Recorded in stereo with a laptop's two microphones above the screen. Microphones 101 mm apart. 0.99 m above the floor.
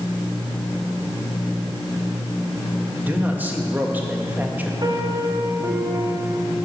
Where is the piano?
45° right (ahead or behind), 1.5 m.